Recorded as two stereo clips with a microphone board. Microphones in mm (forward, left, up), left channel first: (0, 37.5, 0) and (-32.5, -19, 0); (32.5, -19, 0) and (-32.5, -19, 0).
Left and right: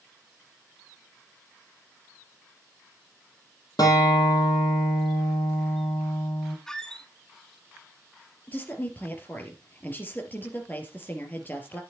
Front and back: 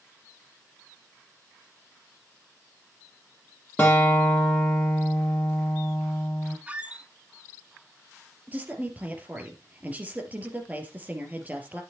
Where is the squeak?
130° left, 1.0 m.